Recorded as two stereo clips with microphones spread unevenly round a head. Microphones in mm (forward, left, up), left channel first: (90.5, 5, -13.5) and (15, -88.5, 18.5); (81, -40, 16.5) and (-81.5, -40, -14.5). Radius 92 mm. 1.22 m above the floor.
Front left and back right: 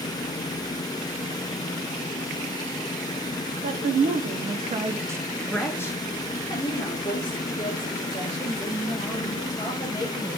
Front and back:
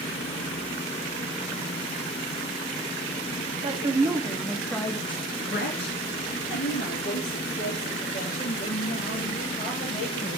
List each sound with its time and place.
3.6 s a woman speaking: 130° right, 0.9 m; by 10.4 s 30° left, 2.5 m